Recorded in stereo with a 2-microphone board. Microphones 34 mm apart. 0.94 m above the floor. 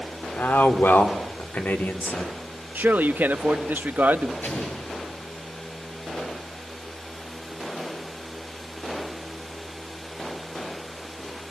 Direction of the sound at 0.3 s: 80° left.